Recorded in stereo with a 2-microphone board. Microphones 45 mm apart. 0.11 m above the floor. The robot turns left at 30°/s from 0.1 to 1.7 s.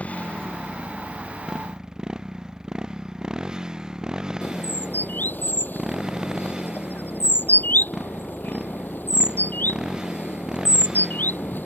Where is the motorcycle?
35° left; by 11.7 s 15° right.